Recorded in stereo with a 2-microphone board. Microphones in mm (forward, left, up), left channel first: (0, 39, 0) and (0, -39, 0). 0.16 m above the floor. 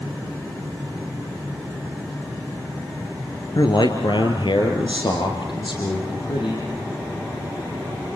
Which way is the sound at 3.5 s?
60° left (ahead or behind).